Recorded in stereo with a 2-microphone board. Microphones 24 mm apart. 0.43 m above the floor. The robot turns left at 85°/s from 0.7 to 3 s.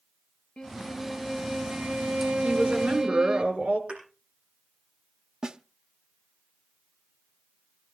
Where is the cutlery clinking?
No cutlery clinking in this recording.